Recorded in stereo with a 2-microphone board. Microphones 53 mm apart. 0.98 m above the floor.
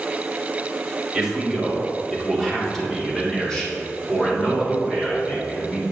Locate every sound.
1.1 s a man speaking: 10° right (ahead or behind), 1.9 m; by 5.8 s 20° left (ahead or behind), 4 m